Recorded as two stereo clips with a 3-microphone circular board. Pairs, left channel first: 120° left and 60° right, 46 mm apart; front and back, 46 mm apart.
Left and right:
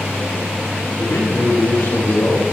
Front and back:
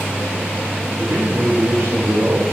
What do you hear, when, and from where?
1.0 s a man speaking: 140° left, 7 m